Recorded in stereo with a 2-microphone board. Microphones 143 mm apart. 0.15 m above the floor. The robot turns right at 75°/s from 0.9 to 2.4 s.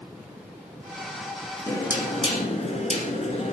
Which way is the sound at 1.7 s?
25° left.